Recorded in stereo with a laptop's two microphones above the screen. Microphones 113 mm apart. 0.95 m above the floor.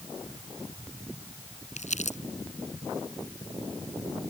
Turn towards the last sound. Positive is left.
turn(degrees=80)